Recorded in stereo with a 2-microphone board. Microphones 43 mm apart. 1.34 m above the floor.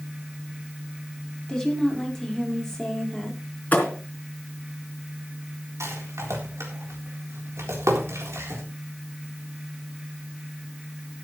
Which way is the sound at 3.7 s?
35° left (ahead or behind).